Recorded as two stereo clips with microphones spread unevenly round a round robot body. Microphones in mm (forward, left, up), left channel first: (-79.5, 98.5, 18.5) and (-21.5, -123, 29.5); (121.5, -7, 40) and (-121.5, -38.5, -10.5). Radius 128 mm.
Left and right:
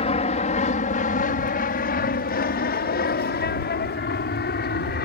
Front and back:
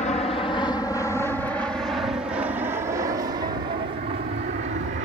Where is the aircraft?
70° left; by 5.1 s 140° left.